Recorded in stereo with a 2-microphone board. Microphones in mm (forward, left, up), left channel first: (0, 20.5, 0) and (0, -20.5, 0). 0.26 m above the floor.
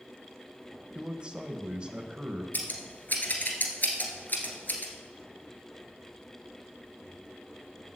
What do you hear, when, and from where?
0.9 s a man speaking: 25° right (ahead or behind), 1.1 m
2.5 s scissors: 50° left (ahead or behind), 1.8 m